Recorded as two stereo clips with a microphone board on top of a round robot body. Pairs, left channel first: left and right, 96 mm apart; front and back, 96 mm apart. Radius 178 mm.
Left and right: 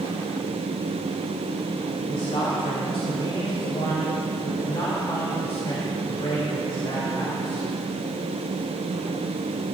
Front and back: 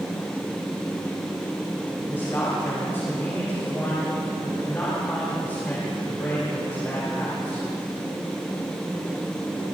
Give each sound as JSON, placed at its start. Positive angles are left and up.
{"t": 2.1, "sound": "a man speaking", "azimuth_deg": 65, "distance_m": 3.0}